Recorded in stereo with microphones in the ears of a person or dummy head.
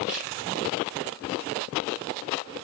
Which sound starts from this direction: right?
A camera shutter, at 0.1 s.